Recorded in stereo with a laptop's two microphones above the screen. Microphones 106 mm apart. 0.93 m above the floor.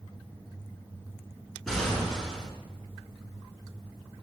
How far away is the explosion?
About 1.9 m.